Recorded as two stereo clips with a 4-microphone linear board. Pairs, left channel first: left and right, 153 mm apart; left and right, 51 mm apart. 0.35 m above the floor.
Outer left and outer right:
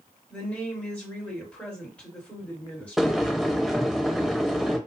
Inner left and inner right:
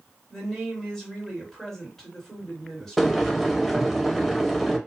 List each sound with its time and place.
0.3 s a woman speaking: 10° left (ahead or behind), 1.6 m
3.0 s boiling: centre (ahead or behind), 0.6 m